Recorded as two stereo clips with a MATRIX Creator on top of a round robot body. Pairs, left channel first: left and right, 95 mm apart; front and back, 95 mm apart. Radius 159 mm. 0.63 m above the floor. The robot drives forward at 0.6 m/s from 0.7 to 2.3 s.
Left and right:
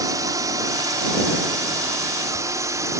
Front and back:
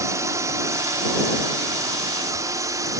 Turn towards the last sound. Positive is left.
turn(degrees=-135)